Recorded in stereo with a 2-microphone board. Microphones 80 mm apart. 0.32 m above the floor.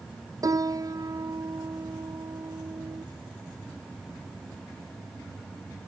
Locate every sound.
0.4 s a piano: 45° right (ahead or behind)